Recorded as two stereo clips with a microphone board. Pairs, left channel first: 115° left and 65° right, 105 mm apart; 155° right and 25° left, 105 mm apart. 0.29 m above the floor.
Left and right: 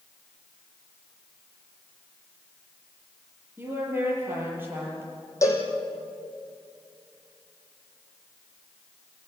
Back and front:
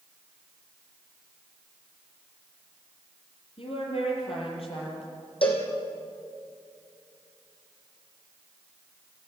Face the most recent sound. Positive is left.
turn(degrees=175)